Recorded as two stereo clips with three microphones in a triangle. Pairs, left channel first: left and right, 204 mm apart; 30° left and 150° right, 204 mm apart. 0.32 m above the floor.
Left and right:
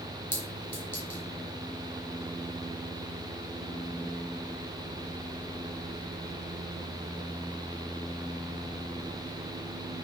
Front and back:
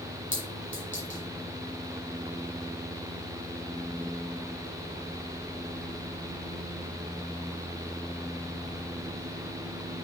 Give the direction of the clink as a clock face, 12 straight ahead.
11 o'clock.